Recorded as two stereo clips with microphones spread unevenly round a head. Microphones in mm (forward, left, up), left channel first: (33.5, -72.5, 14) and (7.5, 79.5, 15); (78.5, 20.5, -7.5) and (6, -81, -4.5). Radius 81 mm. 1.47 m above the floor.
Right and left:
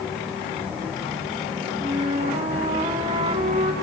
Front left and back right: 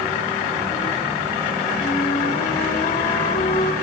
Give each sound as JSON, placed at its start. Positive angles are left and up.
{"t": 1.8, "sound": "a flute", "azimuth_deg": 45, "distance_m": 3.5}